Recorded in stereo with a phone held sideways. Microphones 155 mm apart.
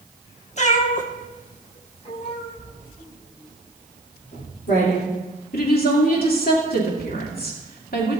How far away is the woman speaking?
About 2.5 m.